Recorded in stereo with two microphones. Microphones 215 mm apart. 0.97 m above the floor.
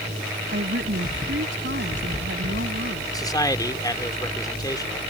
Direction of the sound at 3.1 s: 15° left (ahead or behind).